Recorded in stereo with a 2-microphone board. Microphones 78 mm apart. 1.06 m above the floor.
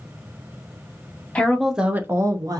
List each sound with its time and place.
1.4 s a woman speaking: 15° left (ahead or behind), 0.5 m; by 2.6 s 55° right (ahead or behind), 0.6 m